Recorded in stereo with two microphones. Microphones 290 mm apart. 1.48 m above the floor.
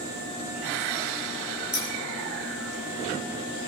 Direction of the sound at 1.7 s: 75° left (ahead or behind).